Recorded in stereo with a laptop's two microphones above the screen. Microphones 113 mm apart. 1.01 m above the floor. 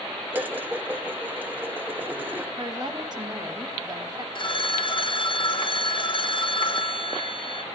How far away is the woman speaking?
About 1.4 m.